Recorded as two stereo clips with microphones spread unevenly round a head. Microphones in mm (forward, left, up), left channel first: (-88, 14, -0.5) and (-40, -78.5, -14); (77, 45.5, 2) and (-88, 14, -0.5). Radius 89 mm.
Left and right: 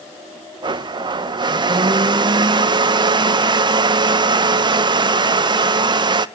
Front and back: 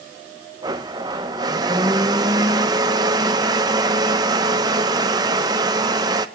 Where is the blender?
100° right, 0.8 m.